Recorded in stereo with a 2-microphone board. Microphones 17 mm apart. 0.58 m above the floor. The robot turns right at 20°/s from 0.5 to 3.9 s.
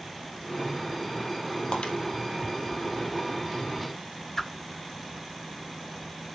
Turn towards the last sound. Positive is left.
turn(degrees=25)  # may be behind; listen again after turning